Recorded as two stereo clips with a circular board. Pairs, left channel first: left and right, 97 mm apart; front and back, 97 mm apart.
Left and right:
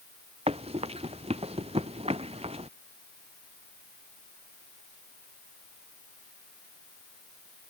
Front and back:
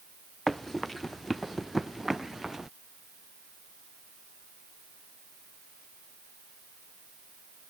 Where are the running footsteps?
90° right; by 2.7 s 95° right.